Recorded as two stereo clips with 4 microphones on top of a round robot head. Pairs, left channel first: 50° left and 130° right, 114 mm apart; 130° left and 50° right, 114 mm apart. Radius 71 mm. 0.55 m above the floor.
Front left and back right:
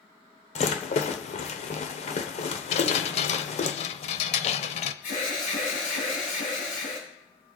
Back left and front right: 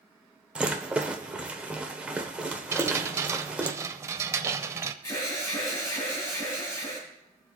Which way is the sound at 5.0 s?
60° left.